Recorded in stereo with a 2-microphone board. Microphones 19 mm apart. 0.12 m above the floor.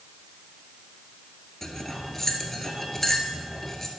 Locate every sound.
1.6 s cutlery clinking: 20° left (ahead or behind), 1.2 m